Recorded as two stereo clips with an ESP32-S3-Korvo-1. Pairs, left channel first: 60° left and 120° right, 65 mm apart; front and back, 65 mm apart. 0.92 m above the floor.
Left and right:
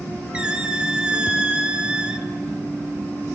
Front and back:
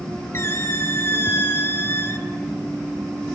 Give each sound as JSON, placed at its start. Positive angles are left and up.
{"t": 0.3, "sound": "a squeak", "azimuth_deg": -45, "distance_m": 1.2}